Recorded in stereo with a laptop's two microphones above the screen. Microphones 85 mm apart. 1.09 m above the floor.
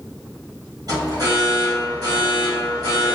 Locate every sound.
0.9 s an alarm: 45° right (ahead or behind), 1.6 m